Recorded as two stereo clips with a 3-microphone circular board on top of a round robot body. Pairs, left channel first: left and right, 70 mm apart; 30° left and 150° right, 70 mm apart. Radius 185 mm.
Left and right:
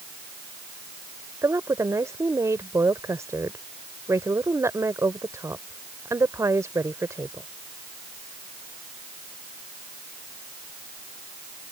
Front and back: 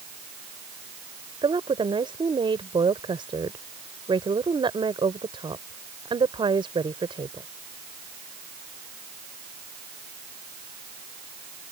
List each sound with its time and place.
1.4 s a woman speaking: 145° right